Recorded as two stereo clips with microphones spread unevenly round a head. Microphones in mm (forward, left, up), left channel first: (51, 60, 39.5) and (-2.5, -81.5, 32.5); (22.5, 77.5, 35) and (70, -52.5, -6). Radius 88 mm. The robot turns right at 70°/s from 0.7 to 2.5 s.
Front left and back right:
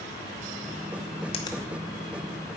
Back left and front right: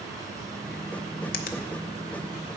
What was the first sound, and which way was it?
A finger snap, 125° left.